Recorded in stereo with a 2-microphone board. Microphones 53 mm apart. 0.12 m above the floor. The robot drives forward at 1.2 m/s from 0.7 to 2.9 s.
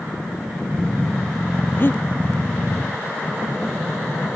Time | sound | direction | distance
1.8 | breathing | 45° left (ahead or behind) | ?